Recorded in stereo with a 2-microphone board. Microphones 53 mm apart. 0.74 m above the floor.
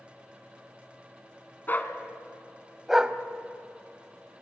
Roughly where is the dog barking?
Left.